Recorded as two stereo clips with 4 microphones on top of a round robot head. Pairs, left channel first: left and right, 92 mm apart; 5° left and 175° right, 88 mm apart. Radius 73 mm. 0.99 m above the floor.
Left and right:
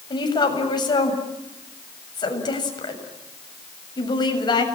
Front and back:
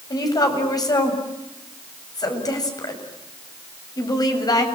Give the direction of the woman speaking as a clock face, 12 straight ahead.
10 o'clock.